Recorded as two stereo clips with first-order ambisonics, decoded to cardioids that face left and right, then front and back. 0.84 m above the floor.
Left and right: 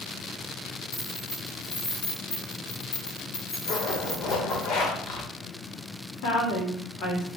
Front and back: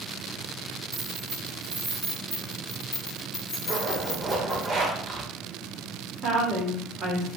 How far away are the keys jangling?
About 1.8 m.